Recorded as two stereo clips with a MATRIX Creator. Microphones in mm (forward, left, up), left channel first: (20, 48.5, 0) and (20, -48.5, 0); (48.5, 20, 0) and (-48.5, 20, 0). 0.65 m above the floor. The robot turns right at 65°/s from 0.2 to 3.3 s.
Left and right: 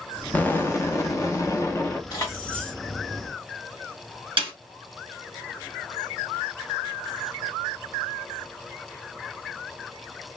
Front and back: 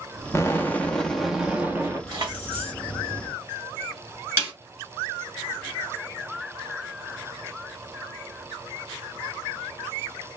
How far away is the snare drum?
About 4 m.